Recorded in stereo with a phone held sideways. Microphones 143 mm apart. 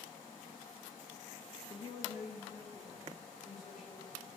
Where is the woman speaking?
25° left (ahead or behind), 0.7 m; by 4.3 s 75° left (ahead or behind), 4 m.